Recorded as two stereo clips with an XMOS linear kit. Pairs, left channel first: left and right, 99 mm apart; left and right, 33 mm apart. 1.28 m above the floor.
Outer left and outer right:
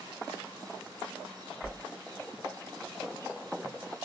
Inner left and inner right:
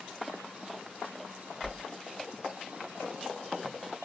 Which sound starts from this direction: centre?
A whoosh, at 1.6 s.